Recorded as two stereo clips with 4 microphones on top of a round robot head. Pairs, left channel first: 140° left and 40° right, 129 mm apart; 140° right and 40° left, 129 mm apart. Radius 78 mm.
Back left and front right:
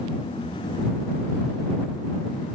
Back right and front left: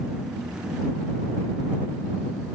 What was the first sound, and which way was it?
Only background noise.